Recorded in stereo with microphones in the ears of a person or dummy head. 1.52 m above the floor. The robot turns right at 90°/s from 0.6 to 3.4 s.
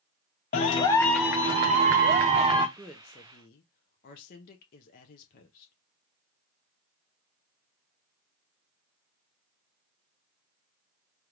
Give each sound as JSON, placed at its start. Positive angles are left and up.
{"t": 0.5, "sound": "a clap", "azimuth_deg": 135, "distance_m": 0.6}
{"t": 2.8, "sound": "a woman speaking", "azimuth_deg": -10, "distance_m": 0.5}